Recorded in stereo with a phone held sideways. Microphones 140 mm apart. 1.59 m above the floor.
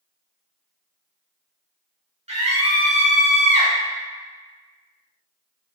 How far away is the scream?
About 1.4 m.